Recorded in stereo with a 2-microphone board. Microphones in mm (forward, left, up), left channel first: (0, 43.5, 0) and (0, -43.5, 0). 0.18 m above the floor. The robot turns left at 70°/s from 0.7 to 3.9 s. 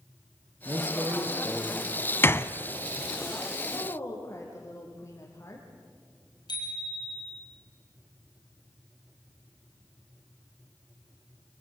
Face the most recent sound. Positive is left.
turn(degrees=55)  # may be behind; listen again after turning